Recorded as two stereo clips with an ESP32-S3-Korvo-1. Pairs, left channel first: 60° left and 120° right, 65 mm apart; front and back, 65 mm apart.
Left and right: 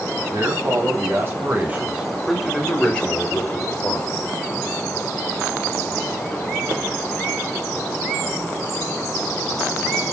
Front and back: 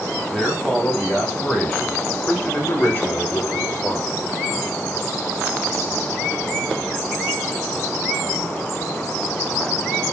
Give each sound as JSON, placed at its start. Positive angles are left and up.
{"t": 0.3, "sound": "a man speaking", "azimuth_deg": -80, "distance_m": 3.0}